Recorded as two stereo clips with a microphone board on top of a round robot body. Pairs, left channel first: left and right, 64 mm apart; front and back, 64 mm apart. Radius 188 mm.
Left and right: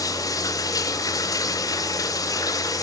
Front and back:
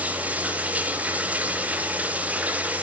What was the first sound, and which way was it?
Running water, 110° left.